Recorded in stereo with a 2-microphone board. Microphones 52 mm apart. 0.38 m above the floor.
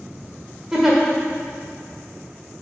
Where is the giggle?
5° right (ahead or behind), 1.6 m.